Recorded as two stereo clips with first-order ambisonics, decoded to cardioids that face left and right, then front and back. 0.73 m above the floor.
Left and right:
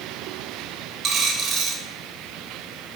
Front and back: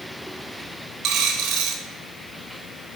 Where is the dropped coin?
145° right, 0.9 m.